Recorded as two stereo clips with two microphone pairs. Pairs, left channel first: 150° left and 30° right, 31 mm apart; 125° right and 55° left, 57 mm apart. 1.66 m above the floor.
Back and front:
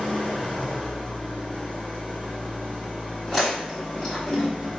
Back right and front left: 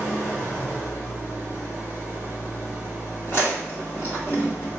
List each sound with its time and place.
0.0 s an engine running: 155° right, 1.0 m
3.3 s chewing: 135° right, 1.4 m